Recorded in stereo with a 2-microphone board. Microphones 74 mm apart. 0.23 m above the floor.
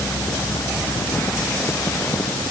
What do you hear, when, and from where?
Only background noise.